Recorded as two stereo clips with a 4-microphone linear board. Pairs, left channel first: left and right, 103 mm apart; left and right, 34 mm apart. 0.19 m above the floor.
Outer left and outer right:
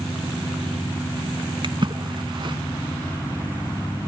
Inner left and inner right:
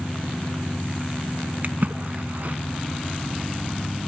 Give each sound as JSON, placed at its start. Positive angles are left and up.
{"t": 1.6, "sound": "a splash", "side_deg": -50, "distance_m": 0.8}